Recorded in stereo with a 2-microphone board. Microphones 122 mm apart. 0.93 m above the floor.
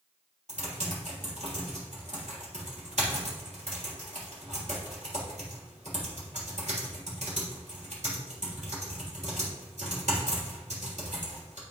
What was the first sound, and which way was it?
Typing on a keyboard, 70° right (ahead or behind).